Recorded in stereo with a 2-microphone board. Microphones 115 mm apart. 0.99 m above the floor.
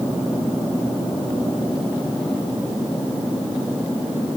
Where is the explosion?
I don't hear an explosion.